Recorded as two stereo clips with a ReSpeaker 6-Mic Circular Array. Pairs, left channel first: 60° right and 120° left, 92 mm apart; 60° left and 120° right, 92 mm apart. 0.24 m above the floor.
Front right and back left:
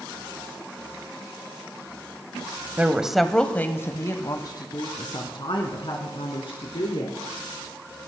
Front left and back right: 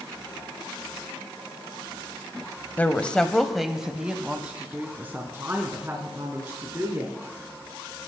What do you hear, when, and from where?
2.8 s a woman speaking: 85° left, 1.0 m; by 7.2 s 60° right, 3 m